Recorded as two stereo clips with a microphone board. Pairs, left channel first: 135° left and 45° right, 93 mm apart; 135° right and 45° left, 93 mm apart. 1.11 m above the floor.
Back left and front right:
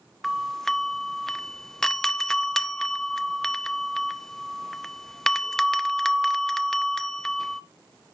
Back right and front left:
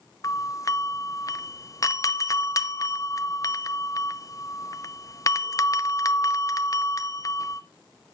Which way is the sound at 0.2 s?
145° right.